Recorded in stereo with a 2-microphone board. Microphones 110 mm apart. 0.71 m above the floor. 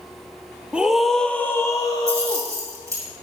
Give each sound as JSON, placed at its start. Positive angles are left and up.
{"t": 0.7, "sound": "a scream", "side_deg": -10, "distance_m": 0.9}
{"t": 2.1, "sound": "keys jangling", "side_deg": -25, "distance_m": 4.0}